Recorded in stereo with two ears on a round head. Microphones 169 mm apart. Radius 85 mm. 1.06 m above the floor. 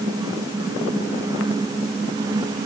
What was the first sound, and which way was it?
Only background noise.